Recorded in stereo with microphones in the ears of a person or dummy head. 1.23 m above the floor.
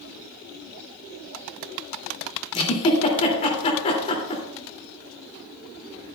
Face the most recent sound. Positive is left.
turn(degrees=35)  # may be behind; listen again after turning